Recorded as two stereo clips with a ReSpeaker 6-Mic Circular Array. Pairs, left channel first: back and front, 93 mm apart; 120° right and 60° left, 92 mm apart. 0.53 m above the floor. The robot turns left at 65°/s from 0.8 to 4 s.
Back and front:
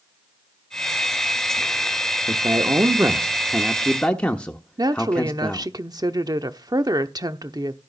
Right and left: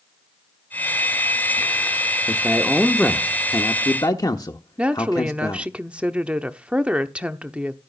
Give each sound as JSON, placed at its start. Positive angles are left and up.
{"t": 2.3, "sound": "a man speaking", "azimuth_deg": 5, "distance_m": 1.0}
{"t": 4.8, "sound": "a woman speaking", "azimuth_deg": -10, "distance_m": 0.9}